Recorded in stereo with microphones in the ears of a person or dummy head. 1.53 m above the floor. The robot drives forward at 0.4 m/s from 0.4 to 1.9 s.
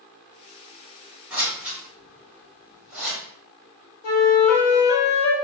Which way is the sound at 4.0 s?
75° left (ahead or behind).